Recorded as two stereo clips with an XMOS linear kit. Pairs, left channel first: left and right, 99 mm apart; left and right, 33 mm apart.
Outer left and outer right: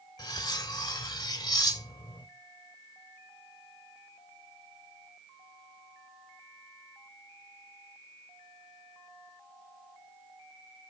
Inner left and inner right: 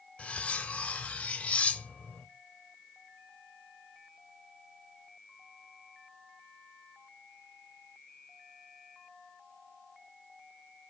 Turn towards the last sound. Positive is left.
turn(degrees=40)  # may be behind; listen again after turning